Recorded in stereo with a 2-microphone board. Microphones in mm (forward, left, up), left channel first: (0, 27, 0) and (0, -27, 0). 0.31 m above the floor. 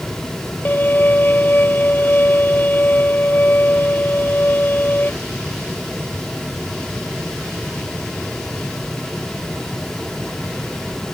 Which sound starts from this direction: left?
A violin, at 0.7 s.